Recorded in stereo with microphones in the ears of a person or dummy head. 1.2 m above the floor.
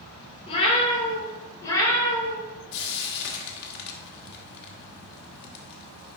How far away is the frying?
About 1.4 m.